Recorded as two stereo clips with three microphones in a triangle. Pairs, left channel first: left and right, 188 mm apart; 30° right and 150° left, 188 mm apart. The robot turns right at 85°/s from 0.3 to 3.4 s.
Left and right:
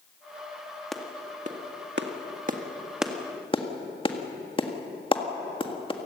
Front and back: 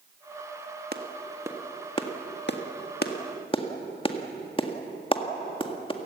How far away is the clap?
About 1.7 m.